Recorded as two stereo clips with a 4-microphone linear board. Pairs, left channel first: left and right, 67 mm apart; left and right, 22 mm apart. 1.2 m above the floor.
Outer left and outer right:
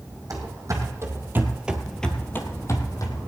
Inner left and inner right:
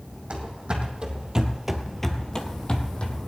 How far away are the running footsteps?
About 2.5 m.